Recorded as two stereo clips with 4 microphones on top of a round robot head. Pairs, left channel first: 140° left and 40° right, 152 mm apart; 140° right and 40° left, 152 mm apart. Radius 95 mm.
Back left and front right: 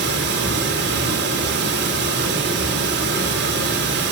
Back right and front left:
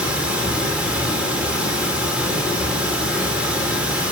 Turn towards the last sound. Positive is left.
turn(degrees=-45)